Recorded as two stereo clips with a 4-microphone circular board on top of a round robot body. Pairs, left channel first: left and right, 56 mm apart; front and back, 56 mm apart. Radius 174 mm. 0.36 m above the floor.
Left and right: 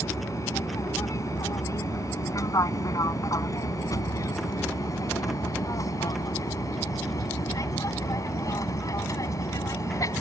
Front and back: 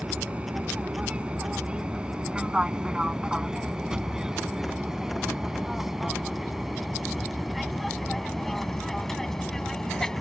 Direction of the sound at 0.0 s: 110° left.